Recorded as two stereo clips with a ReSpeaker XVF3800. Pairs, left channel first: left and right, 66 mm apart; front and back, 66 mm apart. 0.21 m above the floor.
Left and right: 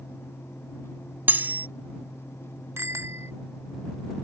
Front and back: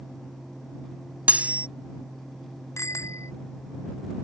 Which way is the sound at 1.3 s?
130° right.